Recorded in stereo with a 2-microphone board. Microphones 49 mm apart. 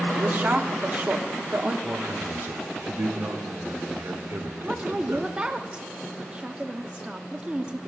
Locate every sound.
0.1 s a woman speaking: 40° right (ahead or behind), 1.1 m
1.8 s a man speaking: 60° right (ahead or behind), 1.3 m
4.6 s a woman speaking: 20° right (ahead or behind), 0.7 m